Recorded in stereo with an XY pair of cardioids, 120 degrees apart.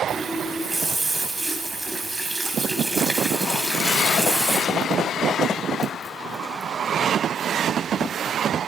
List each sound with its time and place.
0.1 s a running tap: 25° right, 3 m